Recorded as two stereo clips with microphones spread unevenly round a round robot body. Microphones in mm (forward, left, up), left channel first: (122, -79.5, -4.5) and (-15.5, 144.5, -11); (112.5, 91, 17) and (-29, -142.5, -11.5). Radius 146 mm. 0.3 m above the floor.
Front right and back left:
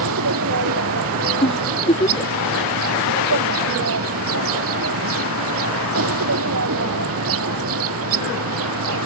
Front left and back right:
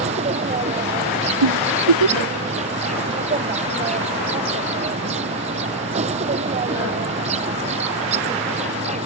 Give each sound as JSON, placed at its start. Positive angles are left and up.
{"t": 0.0, "sound": "an insect", "azimuth_deg": 170}
{"t": 1.4, "sound": "a giggle", "azimuth_deg": -130}